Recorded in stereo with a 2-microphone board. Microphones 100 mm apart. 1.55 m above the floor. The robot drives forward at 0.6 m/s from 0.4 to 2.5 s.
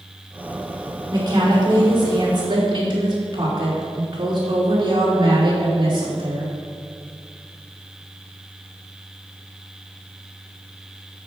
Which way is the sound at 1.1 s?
40° right (ahead or behind).